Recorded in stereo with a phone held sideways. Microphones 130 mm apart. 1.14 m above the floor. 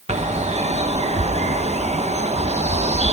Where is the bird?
60° right (ahead or behind), 0.9 m.